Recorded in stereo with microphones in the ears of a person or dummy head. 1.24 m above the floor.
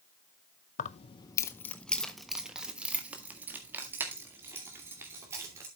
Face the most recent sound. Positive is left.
turn(degrees=-15)  # may be behind; listen again after turning